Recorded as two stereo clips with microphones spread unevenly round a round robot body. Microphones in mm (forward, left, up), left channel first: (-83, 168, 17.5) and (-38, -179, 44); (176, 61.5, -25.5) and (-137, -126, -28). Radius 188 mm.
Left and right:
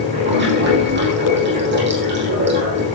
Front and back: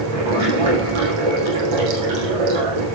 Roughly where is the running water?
Behind right.